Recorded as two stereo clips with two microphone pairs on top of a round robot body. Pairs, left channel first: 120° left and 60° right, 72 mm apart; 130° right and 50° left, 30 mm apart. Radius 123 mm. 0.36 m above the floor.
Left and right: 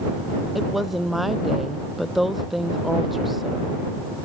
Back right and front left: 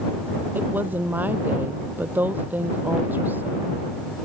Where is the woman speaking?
30° left.